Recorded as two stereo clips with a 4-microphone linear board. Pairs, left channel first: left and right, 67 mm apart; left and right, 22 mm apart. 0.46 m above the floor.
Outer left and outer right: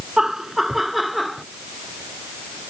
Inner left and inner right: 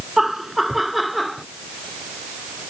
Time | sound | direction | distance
0.2 | laughter | 5° right (ahead or behind) | ?